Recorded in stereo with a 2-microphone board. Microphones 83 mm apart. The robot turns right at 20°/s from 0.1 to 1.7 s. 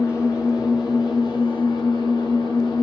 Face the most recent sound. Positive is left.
turn(degrees=70)